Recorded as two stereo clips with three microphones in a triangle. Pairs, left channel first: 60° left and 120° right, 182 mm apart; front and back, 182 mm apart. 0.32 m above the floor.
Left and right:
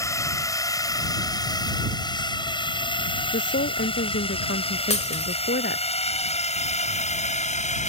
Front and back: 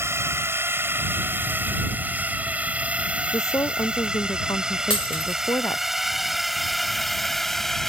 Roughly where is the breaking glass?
Ahead left.